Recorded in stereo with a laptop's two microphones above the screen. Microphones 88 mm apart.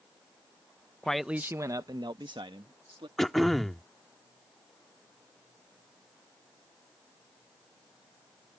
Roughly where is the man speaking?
Centre.